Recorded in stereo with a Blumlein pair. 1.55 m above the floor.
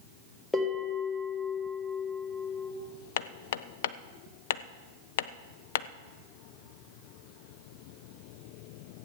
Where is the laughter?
I don't hear laughter.